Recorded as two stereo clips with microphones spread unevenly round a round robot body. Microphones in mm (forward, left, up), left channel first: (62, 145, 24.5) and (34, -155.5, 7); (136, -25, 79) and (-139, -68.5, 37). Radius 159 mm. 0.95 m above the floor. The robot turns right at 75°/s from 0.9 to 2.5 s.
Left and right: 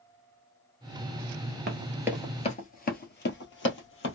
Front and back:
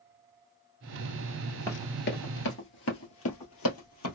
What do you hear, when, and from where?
1.7 s running footsteps: 55° right, 1.1 m; by 4.2 s 45° left, 1.9 m